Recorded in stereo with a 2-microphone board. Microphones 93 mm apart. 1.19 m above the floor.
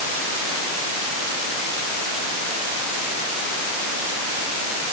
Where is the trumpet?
I don't hear a trumpet.